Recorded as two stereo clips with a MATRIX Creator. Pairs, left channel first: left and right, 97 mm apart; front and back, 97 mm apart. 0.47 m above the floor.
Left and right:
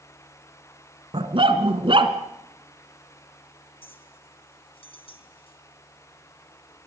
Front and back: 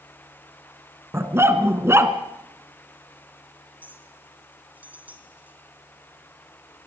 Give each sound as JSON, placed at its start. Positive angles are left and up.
{"t": 1.1, "sound": "a dog barking", "azimuth_deg": -115, "distance_m": 2.5}
{"t": 3.8, "sound": "a clink", "azimuth_deg": 105, "distance_m": 3.5}